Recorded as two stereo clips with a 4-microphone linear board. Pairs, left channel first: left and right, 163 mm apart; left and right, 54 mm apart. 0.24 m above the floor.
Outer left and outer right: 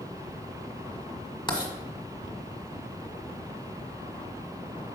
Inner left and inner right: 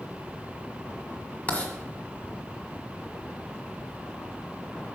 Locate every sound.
1.5 s writing: 30° left (ahead or behind), 1.4 m